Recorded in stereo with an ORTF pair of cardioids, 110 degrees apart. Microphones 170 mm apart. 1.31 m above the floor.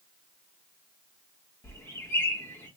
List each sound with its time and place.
1.6 s a bird: 15° left, 1.4 m